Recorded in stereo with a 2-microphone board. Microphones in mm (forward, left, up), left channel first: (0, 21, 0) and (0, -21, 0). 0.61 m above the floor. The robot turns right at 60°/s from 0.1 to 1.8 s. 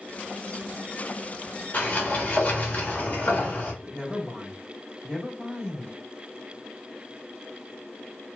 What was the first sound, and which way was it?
A sliding door, 35° left (ahead or behind).